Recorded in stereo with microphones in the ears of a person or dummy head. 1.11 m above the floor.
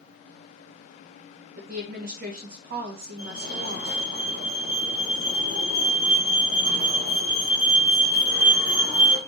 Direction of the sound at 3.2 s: 55° right (ahead or behind).